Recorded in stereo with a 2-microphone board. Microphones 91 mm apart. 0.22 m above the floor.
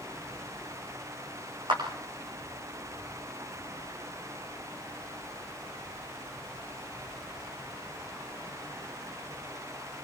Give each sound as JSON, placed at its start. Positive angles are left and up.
{"t": 1.7, "sound": "a clap", "side_deg": -60, "distance_m": 10.0}